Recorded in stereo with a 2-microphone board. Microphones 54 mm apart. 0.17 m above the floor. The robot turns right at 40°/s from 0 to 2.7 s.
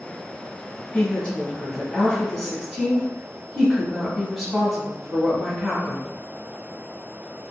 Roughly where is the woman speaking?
Behind left.